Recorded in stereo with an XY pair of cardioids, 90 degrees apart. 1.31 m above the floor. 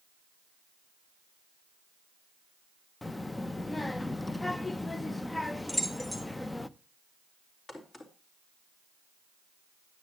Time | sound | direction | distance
3.0 | a child speaking | 20° left | 0.7 m
5.7 | keys jangling | 20° left | 2.5 m
7.7 | a crack | 40° left | 3.5 m